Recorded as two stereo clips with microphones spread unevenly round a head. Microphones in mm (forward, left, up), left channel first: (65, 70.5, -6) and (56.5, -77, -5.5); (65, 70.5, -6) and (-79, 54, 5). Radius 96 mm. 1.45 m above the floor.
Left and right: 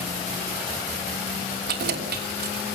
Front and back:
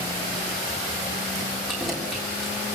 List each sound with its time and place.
1.7 s keys jangling: 85° right, 3 m